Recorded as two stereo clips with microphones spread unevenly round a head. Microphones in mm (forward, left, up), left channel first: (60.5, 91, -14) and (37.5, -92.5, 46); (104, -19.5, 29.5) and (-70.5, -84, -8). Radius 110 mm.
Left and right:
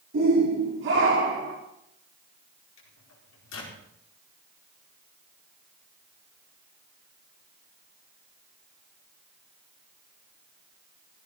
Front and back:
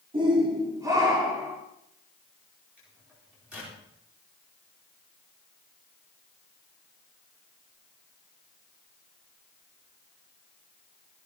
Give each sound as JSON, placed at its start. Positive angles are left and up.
{"t": 0.1, "sound": "a shout", "azimuth_deg": -95, "distance_m": 4.5}
{"t": 2.8, "sound": "a microwave", "azimuth_deg": 115, "distance_m": 4.5}